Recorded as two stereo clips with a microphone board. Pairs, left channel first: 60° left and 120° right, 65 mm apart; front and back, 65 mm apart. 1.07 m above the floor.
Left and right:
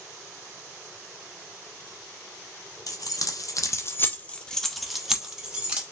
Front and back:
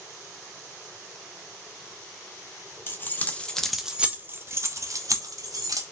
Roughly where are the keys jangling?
Ahead left.